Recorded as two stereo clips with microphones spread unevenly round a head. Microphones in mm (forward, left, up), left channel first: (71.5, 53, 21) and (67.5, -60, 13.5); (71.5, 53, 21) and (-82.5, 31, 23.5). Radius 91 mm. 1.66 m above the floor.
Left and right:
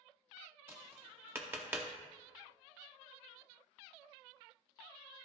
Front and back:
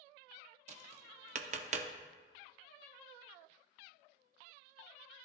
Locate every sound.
0.7 s tapping: 165° right, 0.6 m